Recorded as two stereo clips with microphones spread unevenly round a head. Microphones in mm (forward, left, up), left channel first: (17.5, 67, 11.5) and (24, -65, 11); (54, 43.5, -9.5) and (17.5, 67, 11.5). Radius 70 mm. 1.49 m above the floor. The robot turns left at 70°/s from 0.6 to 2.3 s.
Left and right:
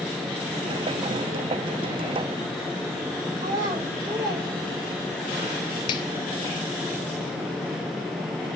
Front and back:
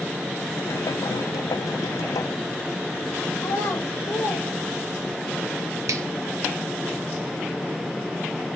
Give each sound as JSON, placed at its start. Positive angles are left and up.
{"t": 3.4, "sound": "a child speaking", "azimuth_deg": -45, "distance_m": 0.9}
{"t": 5.9, "sound": "a finger snap", "azimuth_deg": 155, "distance_m": 0.6}